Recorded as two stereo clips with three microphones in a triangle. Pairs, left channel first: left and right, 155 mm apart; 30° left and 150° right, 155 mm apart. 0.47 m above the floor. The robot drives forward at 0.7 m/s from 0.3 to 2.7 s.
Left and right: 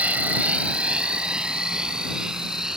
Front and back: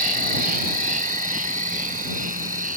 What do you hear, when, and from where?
0.0 s an insect: 170° right; by 2.8 s 175° right